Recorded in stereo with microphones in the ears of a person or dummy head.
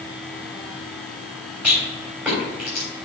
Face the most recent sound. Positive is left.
turn(degrees=-10)  # may be behind; listen again after turning